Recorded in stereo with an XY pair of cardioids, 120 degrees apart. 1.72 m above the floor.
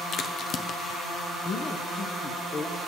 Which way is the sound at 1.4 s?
50° left.